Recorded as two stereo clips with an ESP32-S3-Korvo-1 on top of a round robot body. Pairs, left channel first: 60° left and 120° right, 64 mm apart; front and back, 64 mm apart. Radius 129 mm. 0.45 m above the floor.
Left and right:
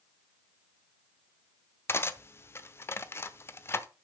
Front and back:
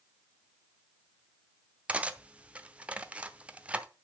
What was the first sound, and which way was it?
Cutlery clinking, 110° left.